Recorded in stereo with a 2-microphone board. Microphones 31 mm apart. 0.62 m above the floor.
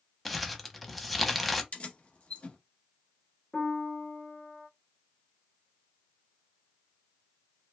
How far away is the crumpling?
About 0.6 m.